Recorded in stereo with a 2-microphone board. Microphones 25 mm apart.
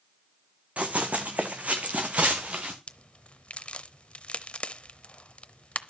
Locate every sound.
0.8 s running footsteps: 65° right (ahead or behind), 1.4 m; by 2.8 s 55° right (ahead or behind), 1.8 m
2.9 s a crack: 55° left (ahead or behind), 0.6 m